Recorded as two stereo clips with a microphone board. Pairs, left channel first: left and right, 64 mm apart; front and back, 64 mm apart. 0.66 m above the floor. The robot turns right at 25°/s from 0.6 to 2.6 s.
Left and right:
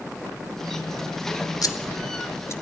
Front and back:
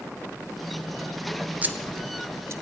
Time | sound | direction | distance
1.6 | scissors | 115° left | 1.0 m